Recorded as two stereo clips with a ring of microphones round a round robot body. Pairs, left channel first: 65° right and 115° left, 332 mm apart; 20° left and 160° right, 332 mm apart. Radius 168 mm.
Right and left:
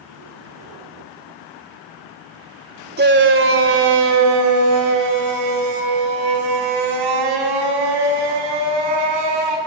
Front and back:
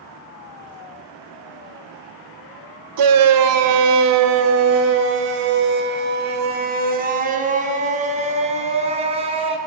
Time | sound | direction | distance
3.0 | a shout | 175° left | 2.5 m